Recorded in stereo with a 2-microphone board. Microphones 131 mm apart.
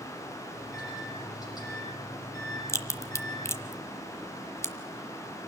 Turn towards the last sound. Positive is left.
turn(degrees=20)  # may be behind; listen again after turning